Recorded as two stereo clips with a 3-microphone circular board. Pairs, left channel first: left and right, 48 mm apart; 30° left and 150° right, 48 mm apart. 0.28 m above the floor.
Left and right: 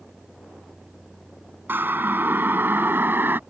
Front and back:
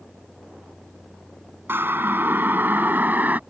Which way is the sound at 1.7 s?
125° right.